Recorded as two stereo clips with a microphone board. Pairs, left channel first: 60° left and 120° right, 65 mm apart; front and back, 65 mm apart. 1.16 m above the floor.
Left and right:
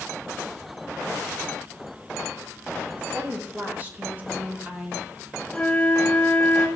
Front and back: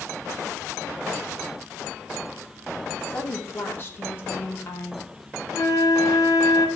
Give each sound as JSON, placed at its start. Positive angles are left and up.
{"t": 3.0, "sound": "a woman speaking", "azimuth_deg": -55, "distance_m": 2.5}
{"t": 5.5, "sound": "a flute", "azimuth_deg": -10, "distance_m": 2.0}